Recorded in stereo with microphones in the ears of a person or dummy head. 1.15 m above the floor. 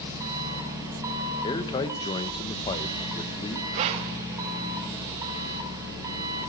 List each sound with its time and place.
0.0 s an engine running: 15° right (ahead or behind), 4.5 m
1.4 s a man speaking: 25° left (ahead or behind), 1.1 m
3.7 s breathing: 35° right (ahead or behind), 0.7 m